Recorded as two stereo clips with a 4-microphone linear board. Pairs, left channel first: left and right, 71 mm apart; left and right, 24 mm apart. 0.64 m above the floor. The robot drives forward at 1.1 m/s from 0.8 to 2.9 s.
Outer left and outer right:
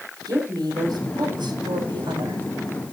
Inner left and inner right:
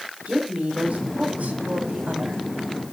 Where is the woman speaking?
65° right (ahead or behind), 4.5 m; by 2.4 s 80° right, 4 m.